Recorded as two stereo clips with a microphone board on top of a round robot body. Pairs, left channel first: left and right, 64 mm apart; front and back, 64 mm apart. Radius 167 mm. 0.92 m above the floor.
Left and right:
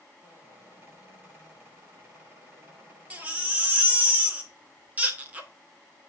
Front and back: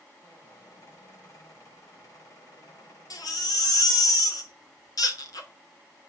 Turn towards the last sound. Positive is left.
turn(degrees=-25)